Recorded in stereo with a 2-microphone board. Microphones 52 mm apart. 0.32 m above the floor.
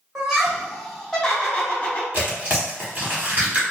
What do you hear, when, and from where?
0.1 s laughter: 15° right (ahead or behind), 1.2 m; by 2.0 s 30° left (ahead or behind), 1.2 m
2.1 s tearing paper: 35° right (ahead or behind), 1.0 m